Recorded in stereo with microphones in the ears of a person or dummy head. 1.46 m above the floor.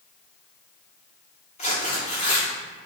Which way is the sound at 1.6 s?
30° left (ahead or behind).